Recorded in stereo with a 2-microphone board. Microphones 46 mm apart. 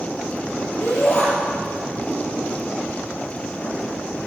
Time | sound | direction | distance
0.8 | a shout | 75° left (ahead or behind) | 6 m